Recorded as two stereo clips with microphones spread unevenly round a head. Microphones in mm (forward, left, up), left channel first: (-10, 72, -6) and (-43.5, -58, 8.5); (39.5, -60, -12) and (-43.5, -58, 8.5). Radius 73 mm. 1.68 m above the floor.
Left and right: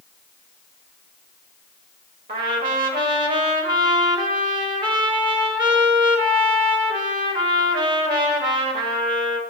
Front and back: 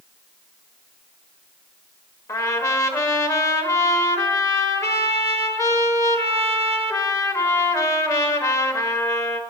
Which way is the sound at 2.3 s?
55° right.